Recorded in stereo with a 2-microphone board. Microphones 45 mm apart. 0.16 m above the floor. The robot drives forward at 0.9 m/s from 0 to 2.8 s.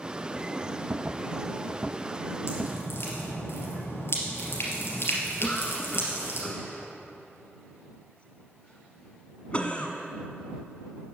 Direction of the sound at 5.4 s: 30° left (ahead or behind).